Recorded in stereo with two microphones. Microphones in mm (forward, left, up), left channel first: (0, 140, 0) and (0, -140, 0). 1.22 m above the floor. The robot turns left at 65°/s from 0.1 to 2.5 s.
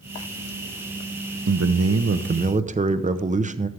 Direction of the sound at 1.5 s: 80° right.